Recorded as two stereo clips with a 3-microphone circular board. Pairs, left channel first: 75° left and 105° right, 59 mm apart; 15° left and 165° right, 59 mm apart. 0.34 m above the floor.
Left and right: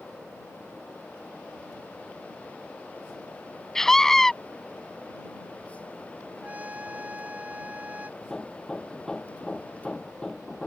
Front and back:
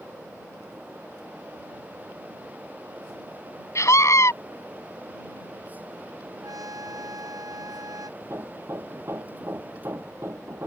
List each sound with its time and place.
3.8 s a scream: 5° right
6.4 s a trumpet: 170° right
8.2 s hammering: 150° left